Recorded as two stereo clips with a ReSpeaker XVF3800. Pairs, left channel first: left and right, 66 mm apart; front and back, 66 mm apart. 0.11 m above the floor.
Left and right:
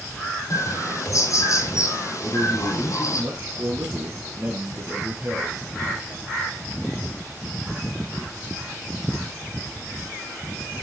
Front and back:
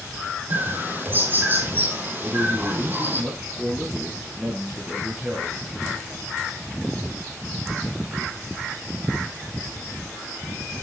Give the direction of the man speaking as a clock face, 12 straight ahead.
4 o'clock.